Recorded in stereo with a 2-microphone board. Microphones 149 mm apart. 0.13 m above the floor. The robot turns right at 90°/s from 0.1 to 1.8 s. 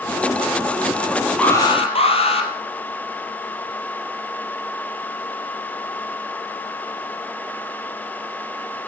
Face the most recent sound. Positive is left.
turn(degrees=45)